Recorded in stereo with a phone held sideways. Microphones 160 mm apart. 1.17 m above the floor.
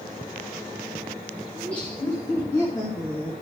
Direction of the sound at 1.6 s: 10° left (ahead or behind).